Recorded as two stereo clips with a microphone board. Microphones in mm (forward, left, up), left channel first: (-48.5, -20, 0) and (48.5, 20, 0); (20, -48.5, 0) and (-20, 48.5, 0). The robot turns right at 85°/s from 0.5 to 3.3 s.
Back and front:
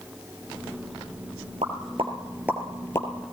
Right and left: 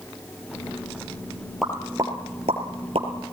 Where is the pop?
25° left, 3 m; by 3.1 s 145° left, 3 m.